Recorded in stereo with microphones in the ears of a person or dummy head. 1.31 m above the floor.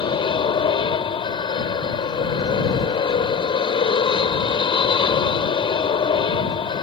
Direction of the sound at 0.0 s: 25° left (ahead or behind).